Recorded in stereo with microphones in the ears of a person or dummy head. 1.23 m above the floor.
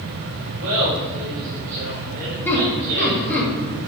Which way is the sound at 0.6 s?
75° right (ahead or behind).